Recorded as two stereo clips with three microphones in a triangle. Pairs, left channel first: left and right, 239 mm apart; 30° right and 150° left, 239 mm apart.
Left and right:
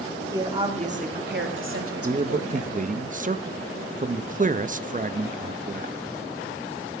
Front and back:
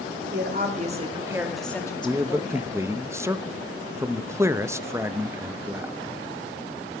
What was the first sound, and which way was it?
A woman speaking, 165° right.